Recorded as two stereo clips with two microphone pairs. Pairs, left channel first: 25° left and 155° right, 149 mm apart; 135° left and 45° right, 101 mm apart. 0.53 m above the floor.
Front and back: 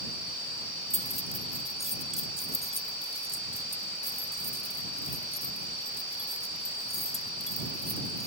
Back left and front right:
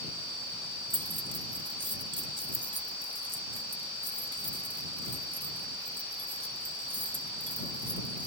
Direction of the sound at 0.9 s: 20° right.